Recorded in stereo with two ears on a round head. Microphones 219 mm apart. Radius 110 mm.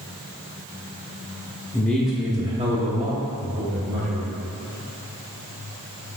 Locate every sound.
1.7 s a man speaking: 10° left (ahead or behind), 0.6 m; by 4.3 s 45° right (ahead or behind), 1.6 m